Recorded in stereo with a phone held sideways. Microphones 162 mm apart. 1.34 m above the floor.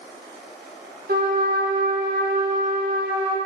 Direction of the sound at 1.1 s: 70° right (ahead or behind).